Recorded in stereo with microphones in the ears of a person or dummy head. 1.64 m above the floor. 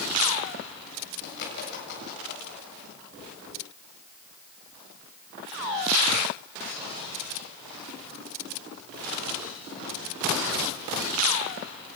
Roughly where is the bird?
Left.